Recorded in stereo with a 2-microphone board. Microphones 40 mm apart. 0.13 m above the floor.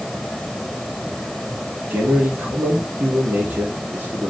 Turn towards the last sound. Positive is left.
turn(degrees=-65)  # may be behind; listen again after turning